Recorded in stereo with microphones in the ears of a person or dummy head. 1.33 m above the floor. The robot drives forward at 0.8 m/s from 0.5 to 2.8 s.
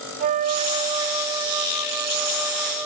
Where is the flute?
35° right (ahead or behind), 0.5 m; by 2.9 s 10° right (ahead or behind), 2 m.